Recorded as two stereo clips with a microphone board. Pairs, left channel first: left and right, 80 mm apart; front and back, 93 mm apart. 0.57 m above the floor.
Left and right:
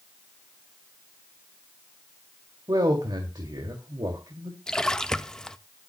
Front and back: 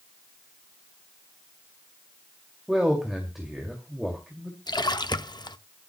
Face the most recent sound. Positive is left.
turn(degrees=10)